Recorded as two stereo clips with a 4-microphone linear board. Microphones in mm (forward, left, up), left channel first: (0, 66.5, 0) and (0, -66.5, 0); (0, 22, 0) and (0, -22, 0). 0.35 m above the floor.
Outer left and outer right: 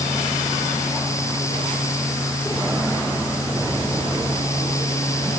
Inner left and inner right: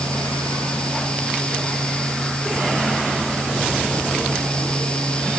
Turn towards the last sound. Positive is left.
No sound to turn to.